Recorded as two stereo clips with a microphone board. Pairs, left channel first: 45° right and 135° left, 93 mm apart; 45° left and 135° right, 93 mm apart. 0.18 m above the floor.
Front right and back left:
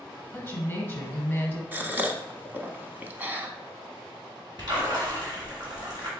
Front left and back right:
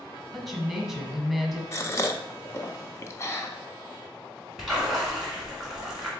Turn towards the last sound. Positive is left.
turn(degrees=145)